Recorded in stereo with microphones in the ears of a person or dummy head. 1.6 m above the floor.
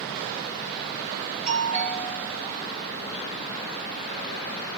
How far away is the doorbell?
About 2.5 m.